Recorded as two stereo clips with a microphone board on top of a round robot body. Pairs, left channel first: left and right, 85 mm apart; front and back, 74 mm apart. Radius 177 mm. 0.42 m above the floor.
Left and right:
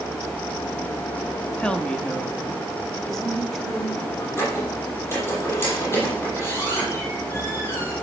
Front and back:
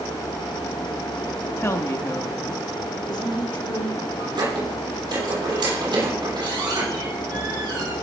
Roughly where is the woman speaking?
Ahead.